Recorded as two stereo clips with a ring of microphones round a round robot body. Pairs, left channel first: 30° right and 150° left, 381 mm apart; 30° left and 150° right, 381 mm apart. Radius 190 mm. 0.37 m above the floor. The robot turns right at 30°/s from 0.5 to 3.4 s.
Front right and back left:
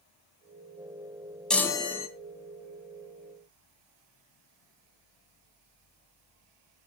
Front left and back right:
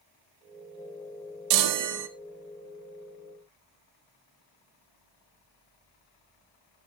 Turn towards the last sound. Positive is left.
turn(degrees=-60)